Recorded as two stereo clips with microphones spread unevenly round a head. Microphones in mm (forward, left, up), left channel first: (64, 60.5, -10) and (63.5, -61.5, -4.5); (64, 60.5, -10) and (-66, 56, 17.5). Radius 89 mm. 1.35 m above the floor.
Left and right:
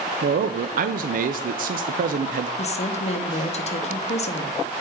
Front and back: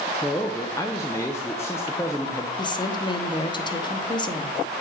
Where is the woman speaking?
55° left, 0.9 m.